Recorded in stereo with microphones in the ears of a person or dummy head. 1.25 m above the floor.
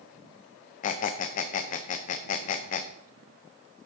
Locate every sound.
0.8 s a squeak: 45° left (ahead or behind), 0.5 m